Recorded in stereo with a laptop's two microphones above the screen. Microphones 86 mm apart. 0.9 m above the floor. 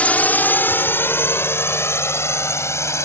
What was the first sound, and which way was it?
A drone, 15° left (ahead or behind).